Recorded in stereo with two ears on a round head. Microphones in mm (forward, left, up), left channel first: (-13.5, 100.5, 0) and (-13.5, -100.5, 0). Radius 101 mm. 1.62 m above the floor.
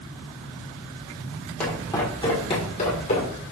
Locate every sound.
1.6 s footsteps: 5° left (ahead or behind), 1.8 m; by 3.4 s 40° left (ahead or behind), 2.5 m